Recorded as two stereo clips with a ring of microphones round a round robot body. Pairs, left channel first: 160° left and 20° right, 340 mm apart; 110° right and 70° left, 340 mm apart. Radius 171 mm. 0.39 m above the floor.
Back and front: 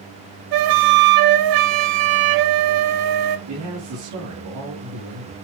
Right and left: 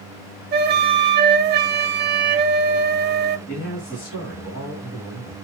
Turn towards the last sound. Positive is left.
turn(degrees=-60)